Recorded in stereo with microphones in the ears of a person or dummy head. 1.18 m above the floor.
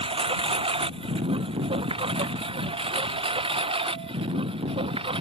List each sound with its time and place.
0.0 s a lawn mower: 35° right (ahead or behind); by 5.2 s 30° right (ahead or behind)